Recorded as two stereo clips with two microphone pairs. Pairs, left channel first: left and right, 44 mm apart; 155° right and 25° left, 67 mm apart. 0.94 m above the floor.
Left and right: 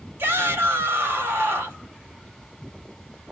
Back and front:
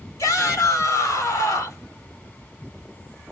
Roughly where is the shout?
Behind right.